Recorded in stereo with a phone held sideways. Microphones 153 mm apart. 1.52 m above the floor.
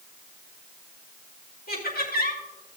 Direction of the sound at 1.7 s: 70° left (ahead or behind).